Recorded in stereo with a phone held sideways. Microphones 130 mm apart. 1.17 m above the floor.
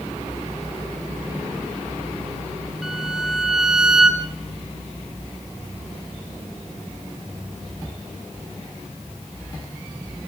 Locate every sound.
2.8 s a violin: 5° right (ahead or behind), 2.5 m